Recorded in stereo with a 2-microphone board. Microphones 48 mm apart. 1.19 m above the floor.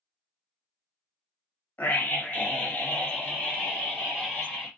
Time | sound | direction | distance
1.8 | a scream | 45° left (ahead or behind) | 1.9 m